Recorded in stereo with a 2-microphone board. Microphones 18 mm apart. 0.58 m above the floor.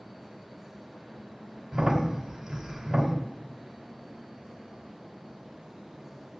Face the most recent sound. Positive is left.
turn(degrees=-30)  # may be behind; listen again after turning